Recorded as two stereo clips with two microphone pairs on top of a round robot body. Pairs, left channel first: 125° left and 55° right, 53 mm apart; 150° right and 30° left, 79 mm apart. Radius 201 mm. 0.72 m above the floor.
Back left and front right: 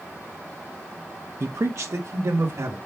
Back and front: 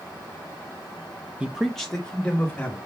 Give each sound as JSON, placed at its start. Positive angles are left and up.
{"t": 1.4, "sound": "a man speaking", "azimuth_deg": -40, "distance_m": 0.9}